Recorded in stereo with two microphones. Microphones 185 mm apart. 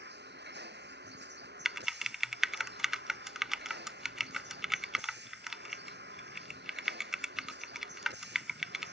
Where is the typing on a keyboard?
Centre (ahead or behind).